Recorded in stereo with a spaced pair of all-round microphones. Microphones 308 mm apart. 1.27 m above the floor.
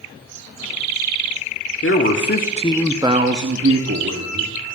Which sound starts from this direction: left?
A man speaking, at 1.8 s.